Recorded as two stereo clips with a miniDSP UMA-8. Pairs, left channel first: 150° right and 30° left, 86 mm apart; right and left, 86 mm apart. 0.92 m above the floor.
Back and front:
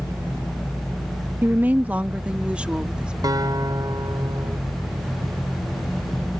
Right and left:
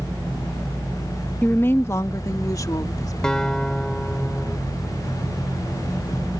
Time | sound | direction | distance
1.4 | a woman speaking | 25° right | ?
3.2 | a guitar | 10° right | ?